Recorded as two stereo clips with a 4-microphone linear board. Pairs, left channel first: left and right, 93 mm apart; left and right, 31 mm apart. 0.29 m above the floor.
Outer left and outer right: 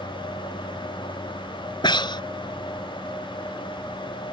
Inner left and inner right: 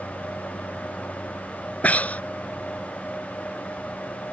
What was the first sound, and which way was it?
Breathing, 55° left (ahead or behind).